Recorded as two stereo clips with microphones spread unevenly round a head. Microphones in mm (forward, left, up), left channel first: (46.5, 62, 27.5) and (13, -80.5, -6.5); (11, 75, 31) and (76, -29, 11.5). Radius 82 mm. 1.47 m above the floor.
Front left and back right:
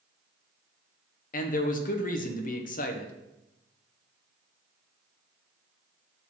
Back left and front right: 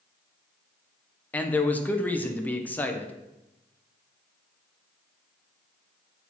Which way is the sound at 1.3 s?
45° left.